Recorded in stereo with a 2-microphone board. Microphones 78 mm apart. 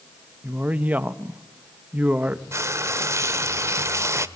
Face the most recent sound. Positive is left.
turn(degrees=-40)  # may be behind; listen again after turning